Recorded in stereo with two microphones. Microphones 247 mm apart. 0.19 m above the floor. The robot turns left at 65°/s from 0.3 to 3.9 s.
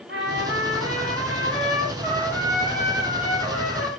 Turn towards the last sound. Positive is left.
turn(degrees=80)